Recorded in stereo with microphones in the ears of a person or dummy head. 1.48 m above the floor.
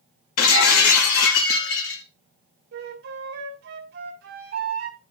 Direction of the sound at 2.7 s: 65° right (ahead or behind).